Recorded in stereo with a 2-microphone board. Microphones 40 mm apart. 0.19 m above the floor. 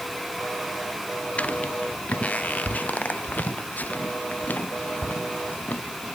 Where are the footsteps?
35° left (ahead or behind); by 5.8 s 50° left (ahead or behind).